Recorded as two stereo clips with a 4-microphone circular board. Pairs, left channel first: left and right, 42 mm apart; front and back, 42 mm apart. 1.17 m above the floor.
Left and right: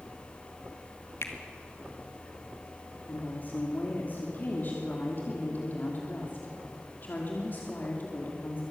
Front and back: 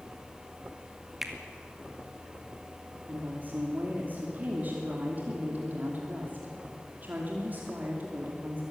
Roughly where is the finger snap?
Left.